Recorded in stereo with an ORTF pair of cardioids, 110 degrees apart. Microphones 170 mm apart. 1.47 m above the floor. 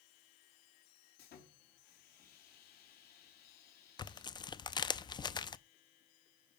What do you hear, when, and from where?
1.2 s sawing: 65° left, 3 m
4.0 s tearing paper: 25° left, 0.6 m